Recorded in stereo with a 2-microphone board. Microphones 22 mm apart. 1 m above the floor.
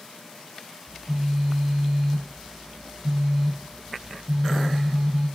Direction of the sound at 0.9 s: 25° right (ahead or behind).